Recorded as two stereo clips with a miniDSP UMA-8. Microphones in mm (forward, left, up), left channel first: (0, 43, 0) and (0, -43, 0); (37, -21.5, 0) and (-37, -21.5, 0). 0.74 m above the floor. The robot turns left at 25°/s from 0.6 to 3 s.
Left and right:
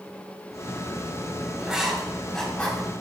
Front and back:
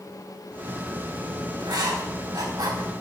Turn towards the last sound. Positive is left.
turn(degrees=160)